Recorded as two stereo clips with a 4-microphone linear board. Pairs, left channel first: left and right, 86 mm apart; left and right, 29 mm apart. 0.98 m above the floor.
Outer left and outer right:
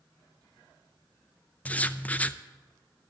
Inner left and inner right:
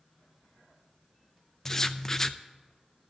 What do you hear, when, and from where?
1.6 s writing: 15° left (ahead or behind), 0.5 m